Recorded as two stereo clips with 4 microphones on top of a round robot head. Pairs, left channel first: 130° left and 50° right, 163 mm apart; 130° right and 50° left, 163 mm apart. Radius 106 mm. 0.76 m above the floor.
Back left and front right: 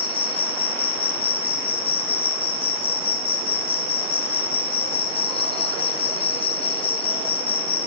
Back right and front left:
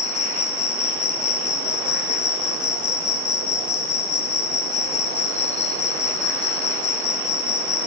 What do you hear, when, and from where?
0.0 s an insect: 175° right, 1.0 m